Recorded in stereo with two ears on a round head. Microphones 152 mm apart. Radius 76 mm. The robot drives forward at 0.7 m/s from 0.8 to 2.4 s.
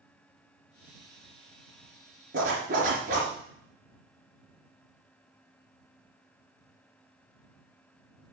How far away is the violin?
No violin in this recording.